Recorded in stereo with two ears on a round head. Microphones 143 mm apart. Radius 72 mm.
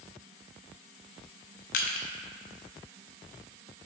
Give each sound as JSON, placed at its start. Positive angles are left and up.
{"t": 1.7, "sound": "crushing", "side_deg": 55, "distance_m": 0.8}